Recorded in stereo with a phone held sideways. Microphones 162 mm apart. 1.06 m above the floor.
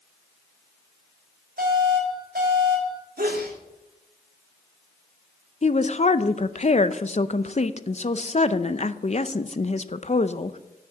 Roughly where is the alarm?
Right.